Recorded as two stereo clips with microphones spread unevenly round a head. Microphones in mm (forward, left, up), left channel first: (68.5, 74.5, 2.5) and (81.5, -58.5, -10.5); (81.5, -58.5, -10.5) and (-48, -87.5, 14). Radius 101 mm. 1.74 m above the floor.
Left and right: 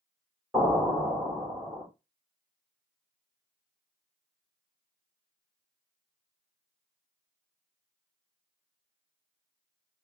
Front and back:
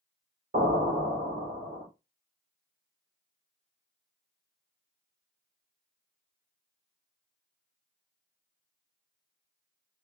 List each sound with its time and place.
0.5 s an explosion: 170° right, 1.8 m